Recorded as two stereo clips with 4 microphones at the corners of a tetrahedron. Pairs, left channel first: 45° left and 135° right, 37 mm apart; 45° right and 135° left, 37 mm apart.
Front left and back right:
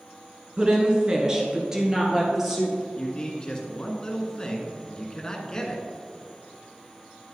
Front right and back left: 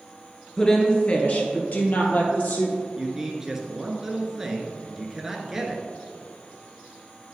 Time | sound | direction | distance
0.6 | a woman speaking | 100° right | 1.2 m
3.0 | a man speaking | 80° left | 1.1 m